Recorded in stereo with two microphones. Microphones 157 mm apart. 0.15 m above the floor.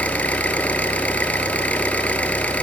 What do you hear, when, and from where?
0.0 s an engine running: 10° left (ahead or behind), 0.8 m